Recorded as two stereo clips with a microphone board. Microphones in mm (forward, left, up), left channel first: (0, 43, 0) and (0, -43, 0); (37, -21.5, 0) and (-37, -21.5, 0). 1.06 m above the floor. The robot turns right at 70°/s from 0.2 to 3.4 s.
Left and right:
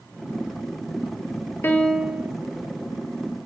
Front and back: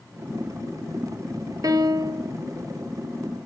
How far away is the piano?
About 0.6 m.